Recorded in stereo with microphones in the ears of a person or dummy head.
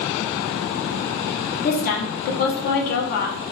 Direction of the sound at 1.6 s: 55° left (ahead or behind).